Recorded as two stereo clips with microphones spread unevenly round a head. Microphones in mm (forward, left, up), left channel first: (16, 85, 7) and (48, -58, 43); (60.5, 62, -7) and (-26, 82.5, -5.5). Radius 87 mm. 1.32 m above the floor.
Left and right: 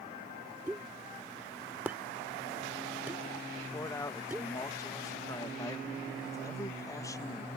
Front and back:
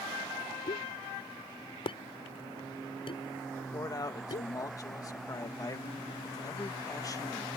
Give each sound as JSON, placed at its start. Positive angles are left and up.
{"t": 0.7, "sound": "a pop", "azimuth_deg": 0}
{"t": 3.5, "sound": "a man speaking", "azimuth_deg": 35}